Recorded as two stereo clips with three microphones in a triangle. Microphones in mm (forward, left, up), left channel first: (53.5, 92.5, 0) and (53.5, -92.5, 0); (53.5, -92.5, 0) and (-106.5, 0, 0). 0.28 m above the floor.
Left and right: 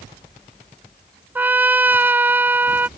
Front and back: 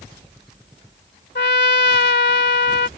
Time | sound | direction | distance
1.4 | a trumpet | 10° right | ?